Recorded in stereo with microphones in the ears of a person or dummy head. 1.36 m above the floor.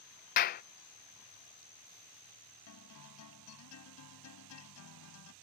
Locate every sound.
0.4 s a clap: 45° left (ahead or behind)
2.7 s a guitar: 85° left